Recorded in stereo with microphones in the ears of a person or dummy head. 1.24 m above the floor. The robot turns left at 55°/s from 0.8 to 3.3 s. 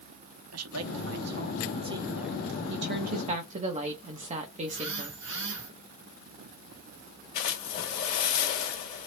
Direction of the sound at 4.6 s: 50° right (ahead or behind).